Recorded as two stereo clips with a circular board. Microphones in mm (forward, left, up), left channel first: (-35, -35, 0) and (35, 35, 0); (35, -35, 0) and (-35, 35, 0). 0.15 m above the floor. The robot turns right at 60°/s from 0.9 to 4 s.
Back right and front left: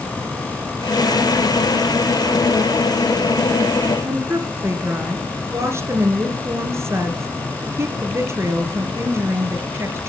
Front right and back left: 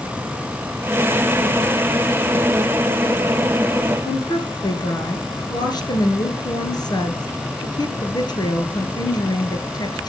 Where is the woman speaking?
15° right, 2 m.